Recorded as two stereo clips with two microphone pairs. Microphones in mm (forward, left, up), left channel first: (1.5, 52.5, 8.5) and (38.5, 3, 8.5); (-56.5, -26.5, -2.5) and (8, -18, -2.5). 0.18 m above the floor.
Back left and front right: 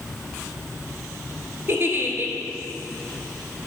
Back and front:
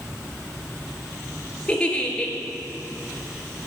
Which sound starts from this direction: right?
A giggle, at 1.7 s.